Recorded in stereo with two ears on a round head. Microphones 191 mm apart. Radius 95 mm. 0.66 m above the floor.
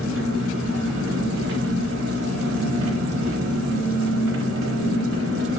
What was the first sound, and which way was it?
An engine running, 65° right (ahead or behind).